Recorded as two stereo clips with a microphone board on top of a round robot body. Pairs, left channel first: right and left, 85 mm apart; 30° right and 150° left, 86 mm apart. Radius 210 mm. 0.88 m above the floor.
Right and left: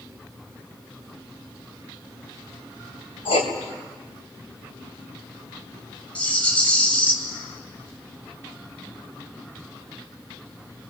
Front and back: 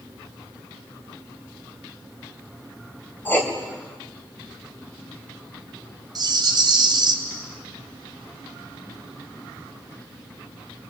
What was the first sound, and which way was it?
Writing, 100° right.